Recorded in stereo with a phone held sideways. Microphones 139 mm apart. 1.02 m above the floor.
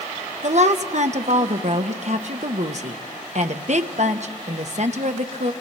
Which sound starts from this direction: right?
A woman speaking, at 0.4 s.